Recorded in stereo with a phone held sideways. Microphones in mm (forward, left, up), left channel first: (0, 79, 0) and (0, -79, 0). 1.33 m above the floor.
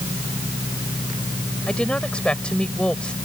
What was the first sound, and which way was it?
A woman speaking, 5° left (ahead or behind).